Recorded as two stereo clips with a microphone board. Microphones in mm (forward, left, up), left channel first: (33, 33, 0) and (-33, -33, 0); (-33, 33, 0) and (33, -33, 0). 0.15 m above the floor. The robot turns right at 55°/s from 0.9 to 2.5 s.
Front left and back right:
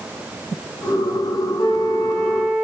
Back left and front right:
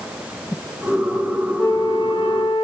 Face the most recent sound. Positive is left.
turn(degrees=125)